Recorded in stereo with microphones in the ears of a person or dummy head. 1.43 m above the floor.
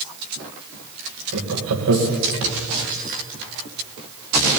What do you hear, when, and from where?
1.3 s laughter: 85° right, 1.8 m